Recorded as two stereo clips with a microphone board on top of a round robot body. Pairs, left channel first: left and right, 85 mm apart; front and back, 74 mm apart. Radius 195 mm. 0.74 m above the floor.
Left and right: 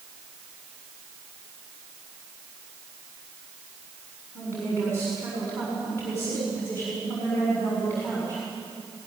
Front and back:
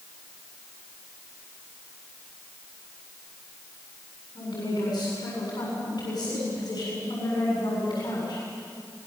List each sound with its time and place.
4.3 s a woman speaking: 25° left, 7 m